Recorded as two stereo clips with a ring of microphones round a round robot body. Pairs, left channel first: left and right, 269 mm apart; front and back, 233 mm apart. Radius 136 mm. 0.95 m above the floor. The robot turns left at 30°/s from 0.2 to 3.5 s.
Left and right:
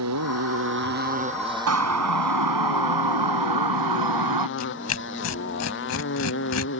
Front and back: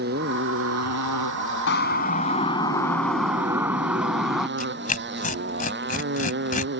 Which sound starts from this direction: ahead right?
A siren, at 1.7 s.